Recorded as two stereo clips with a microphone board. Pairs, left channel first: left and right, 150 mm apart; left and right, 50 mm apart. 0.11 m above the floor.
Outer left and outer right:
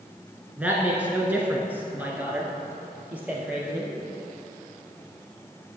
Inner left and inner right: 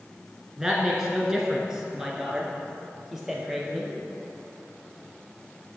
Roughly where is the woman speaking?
Centre.